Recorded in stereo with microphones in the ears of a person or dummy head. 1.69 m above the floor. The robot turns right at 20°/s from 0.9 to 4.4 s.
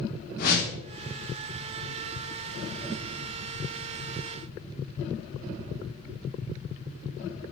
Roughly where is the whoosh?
Left.